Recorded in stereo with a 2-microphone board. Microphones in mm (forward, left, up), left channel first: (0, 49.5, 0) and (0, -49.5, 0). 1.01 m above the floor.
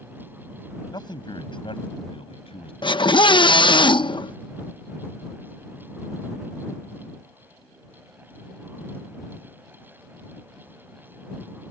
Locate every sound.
0.9 s a man speaking: 50° left (ahead or behind); by 2.7 s 75° left (ahead or behind)
2.8 s a scream: 55° left (ahead or behind)